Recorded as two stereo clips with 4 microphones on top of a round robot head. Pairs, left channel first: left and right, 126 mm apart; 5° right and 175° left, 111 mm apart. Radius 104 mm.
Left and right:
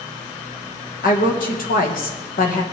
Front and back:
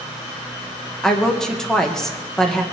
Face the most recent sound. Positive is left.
turn(degrees=80)